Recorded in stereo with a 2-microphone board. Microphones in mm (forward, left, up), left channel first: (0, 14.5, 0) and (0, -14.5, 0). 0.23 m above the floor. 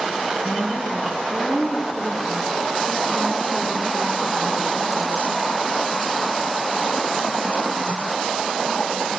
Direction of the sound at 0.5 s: 25° left (ahead or behind).